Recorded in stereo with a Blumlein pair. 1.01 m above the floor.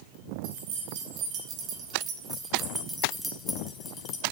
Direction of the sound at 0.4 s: 45° right.